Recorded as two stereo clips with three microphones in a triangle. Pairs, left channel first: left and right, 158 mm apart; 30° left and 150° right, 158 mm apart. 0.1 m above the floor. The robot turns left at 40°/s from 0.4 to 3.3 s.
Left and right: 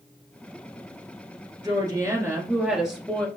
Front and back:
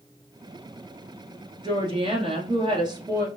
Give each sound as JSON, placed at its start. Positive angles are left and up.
{"t": 1.6, "sound": "a woman speaking", "azimuth_deg": -130, "distance_m": 1.5}